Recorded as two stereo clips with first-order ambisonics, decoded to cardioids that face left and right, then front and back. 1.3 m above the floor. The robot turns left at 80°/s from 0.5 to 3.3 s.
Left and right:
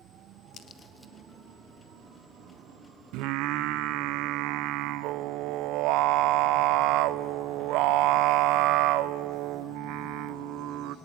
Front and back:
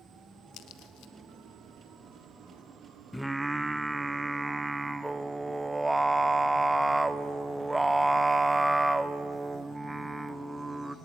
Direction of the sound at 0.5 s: 40° left.